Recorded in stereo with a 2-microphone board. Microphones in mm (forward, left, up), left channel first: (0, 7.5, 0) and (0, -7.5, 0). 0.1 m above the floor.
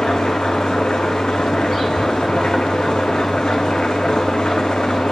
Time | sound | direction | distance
0.0 | an engine running | 80° left | 5 m